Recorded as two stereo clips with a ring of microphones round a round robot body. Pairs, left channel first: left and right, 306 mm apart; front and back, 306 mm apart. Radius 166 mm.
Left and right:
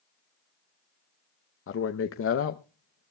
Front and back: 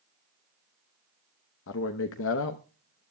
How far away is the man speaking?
About 0.7 m.